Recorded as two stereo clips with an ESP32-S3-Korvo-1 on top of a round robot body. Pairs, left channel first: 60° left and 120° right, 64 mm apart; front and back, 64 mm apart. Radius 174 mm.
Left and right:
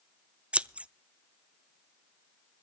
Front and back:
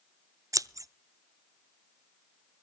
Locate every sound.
0.5 s scissors: 170° left, 0.7 m